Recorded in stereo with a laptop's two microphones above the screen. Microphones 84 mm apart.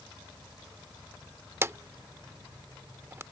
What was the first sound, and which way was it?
A drawer, 30° right (ahead or behind).